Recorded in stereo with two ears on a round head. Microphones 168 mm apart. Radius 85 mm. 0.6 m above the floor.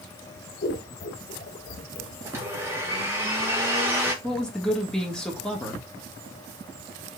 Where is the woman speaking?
5° left (ahead or behind), 1.5 m.